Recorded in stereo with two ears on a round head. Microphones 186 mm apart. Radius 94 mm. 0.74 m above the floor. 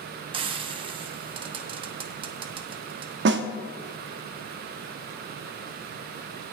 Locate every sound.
0.3 s frying: 25° right (ahead or behind), 1.0 m
3.2 s a snare drum: 55° right (ahead or behind), 0.8 m